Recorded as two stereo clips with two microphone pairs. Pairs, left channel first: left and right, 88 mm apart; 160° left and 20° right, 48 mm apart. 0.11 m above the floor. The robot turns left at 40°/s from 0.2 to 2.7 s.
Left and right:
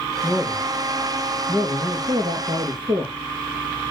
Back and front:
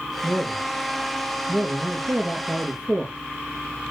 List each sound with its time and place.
0.2 s a man speaking: straight ahead, 3.5 m; by 3.1 s 95° right, 3.5 m